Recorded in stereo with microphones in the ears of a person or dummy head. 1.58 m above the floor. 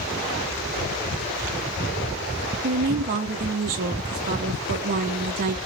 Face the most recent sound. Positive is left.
turn(degrees=-40)  # may be behind; listen again after turning